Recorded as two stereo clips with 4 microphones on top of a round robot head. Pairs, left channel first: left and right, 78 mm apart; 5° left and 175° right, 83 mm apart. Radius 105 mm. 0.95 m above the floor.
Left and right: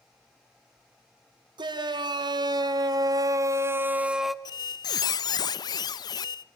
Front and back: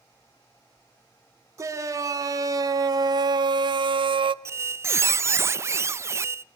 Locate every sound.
1.6 s a shout: 120° right, 3 m; by 4.3 s straight behind, 1.0 m
4.5 s a squeak: 125° left, 0.5 m